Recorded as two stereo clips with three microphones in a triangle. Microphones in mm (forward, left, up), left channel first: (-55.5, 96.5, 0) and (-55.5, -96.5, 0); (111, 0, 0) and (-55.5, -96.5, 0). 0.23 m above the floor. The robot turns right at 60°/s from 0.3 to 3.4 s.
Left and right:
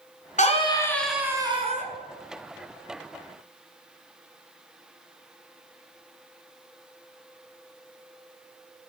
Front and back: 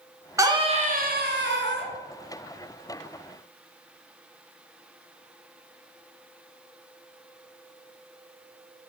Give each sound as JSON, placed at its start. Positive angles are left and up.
{"t": 0.4, "sound": "a scream", "azimuth_deg": 135, "distance_m": 2.5}